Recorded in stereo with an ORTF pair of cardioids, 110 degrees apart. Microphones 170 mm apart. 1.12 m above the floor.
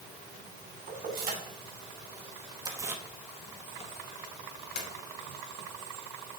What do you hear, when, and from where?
0.9 s keys jangling: 55° right, 2.5 m; by 4.9 s 70° left, 1.6 m